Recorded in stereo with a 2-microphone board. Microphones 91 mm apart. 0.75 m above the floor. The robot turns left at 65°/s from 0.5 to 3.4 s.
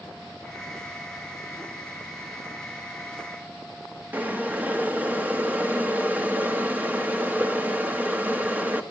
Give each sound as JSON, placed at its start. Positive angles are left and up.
{"t": 4.1, "sound": "boiling", "side_deg": -20, "distance_m": 1.1}